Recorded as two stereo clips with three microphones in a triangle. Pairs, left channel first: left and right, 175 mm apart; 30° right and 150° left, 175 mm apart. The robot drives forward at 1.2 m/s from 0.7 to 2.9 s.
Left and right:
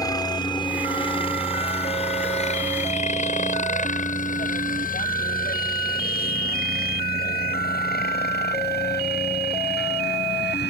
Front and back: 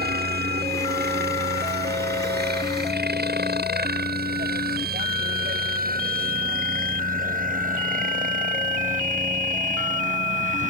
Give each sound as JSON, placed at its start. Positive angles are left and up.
{"t": 0.0, "sound": "a helicopter", "azimuth_deg": 155}